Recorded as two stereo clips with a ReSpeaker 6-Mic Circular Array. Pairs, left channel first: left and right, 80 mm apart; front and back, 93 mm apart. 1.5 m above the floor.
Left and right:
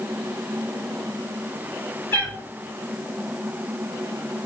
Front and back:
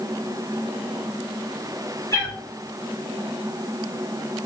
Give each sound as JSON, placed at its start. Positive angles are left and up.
{"t": 2.1, "sound": "a cat meowing", "azimuth_deg": 35, "distance_m": 1.8}